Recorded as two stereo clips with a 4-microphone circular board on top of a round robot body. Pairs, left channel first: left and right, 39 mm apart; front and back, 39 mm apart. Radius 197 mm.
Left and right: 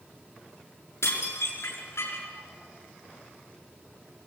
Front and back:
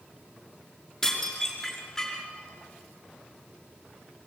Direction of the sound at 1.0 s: 75° left.